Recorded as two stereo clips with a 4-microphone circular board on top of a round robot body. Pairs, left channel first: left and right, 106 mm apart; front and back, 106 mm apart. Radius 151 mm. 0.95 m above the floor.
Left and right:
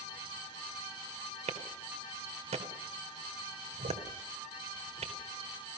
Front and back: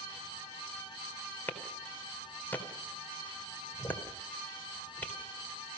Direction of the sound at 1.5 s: 75° right.